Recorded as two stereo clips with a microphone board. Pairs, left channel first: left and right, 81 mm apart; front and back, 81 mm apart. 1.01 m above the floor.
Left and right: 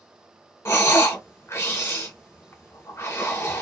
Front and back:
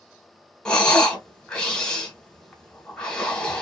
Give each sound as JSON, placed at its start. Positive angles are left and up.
{"t": 0.7, "sound": "breathing", "azimuth_deg": 70, "distance_m": 0.9}